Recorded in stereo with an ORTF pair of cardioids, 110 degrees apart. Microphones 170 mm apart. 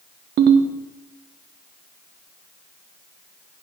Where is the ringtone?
70° right, 1.3 m.